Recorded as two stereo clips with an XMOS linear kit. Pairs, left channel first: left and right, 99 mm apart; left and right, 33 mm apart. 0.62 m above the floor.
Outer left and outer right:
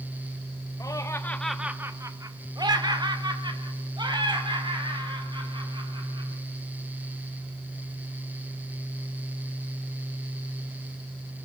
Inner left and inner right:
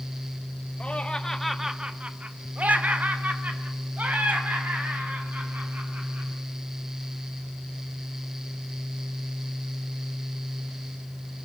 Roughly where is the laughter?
Left.